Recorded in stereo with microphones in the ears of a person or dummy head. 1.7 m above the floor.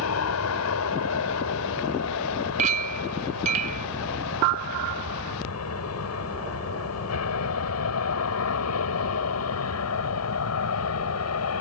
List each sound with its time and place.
0.0 s an aircraft: 80° left
2.6 s a clink: 35° right (ahead or behind)